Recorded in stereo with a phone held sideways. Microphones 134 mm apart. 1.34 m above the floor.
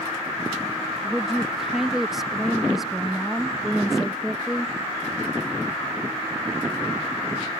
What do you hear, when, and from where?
1.0 s a woman speaking: 5° right (ahead or behind)